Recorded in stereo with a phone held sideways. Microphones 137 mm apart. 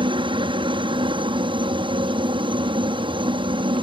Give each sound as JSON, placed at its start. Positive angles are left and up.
{"t": 0.0, "sound": "a helicopter", "side_deg": -40}